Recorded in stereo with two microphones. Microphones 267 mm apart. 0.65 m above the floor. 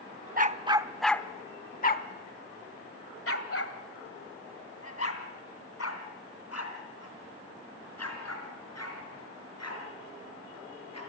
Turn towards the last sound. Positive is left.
turn(degrees=75)  # may be behind; listen again after turning